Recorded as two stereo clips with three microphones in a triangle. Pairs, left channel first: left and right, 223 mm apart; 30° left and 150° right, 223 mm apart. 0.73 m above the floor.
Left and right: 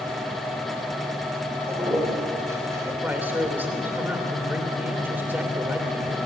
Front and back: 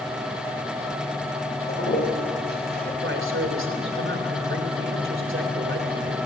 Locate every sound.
1.7 s a toilet flushing: 15° right, 2.5 m
3.0 s a man speaking: 170° right, 2.5 m